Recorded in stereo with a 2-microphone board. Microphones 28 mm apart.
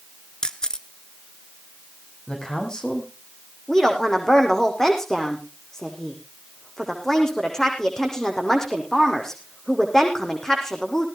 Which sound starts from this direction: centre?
A woman speaking, at 3.7 s.